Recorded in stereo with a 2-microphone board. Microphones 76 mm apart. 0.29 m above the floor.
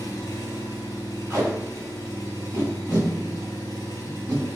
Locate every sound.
0.0 s an engine running: 45° left (ahead or behind), 1.3 m
1.3 s tape being pulled: 35° right (ahead or behind), 1.7 m